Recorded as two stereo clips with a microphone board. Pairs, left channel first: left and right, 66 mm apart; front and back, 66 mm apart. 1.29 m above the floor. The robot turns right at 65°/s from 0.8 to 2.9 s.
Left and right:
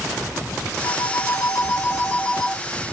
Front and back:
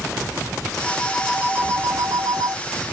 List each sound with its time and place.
0.8 s a phone ringing: 70° left, 1.9 m; by 2.6 s 175° right, 1.9 m